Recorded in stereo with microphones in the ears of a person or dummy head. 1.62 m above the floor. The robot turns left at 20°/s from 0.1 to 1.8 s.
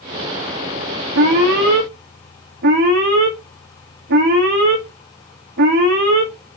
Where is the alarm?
65° right (ahead or behind), 0.8 m; by 6.3 s 50° right (ahead or behind), 0.8 m.